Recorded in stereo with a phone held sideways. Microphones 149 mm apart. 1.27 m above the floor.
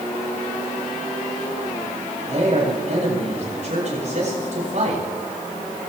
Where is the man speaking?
50° right (ahead or behind), 8 m.